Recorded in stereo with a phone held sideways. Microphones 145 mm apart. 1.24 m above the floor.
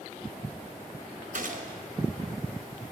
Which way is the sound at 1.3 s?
60° right (ahead or behind).